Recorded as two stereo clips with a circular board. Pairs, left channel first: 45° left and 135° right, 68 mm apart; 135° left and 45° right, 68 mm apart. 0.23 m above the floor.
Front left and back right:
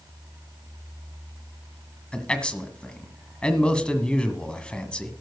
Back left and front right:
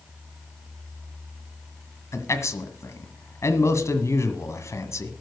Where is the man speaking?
115° left, 1.6 m.